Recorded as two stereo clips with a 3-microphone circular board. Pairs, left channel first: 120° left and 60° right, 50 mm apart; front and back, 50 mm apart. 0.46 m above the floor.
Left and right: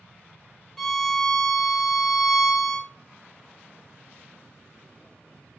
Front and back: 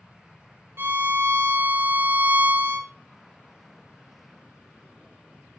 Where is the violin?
160° right, 1.7 m.